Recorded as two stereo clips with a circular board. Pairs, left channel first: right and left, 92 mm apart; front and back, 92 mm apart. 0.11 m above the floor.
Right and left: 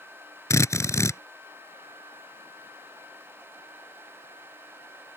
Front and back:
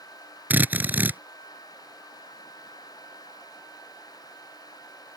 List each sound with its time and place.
0.5 s a drill: 120° right